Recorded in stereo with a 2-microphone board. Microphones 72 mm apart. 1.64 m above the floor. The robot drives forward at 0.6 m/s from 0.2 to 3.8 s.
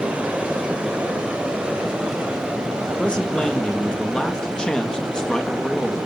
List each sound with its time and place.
0.0 s running water: 15° right (ahead or behind), 4.5 m; by 6.1 s 10° right (ahead or behind), 6.5 m
3.0 s a man speaking: 15° left (ahead or behind), 2.5 m; by 6.0 s 10° left (ahead or behind), 3 m